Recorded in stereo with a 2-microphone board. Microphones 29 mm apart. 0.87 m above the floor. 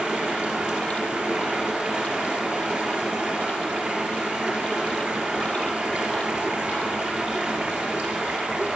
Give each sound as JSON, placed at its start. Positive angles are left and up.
{"t": 0.0, "sound": "running water", "side_deg": -65, "distance_m": 3.0}